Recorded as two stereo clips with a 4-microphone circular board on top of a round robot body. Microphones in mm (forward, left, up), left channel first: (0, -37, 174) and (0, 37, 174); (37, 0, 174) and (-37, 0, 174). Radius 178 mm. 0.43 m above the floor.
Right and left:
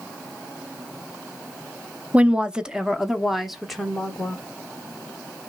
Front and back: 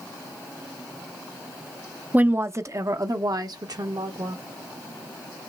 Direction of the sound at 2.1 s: 140° left.